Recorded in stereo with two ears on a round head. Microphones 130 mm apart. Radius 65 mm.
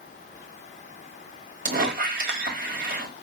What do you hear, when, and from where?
1.6 s a squeak: 65° right (ahead or behind), 1.5 m